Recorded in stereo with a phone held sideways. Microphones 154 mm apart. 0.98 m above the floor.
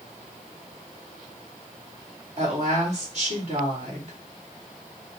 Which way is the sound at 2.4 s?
50° right (ahead or behind).